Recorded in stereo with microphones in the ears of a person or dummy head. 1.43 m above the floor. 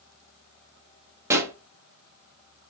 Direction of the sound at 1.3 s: 15° right (ahead or behind).